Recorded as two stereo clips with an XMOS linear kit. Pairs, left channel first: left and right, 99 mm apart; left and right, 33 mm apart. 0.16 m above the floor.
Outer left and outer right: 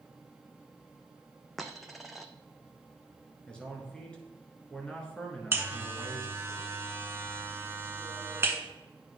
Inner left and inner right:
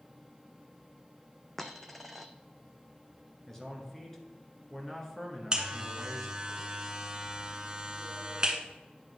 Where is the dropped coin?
Centre (ahead or behind), 0.7 m.